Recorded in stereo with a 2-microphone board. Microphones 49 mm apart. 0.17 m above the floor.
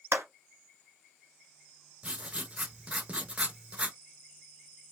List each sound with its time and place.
0.1 s a clap: 55° right (ahead or behind), 1.4 m
2.0 s writing: 25° right (ahead or behind), 0.6 m